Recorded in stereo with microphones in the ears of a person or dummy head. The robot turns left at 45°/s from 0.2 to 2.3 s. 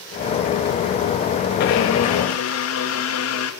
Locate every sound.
1.6 s a blender: 120° left, 2.5 m; by 3.5 s 90° left, 2.5 m